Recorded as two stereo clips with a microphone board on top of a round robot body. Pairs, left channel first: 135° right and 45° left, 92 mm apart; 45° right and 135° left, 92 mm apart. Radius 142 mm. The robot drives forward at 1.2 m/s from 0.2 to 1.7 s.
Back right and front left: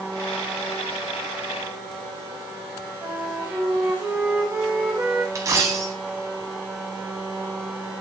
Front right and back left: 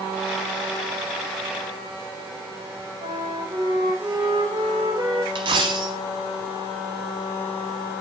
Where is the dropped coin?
100° left, 0.8 m.